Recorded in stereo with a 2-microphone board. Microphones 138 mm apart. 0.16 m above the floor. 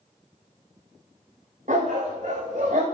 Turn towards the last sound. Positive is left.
turn(degrees=-65)  # may be behind; listen again after turning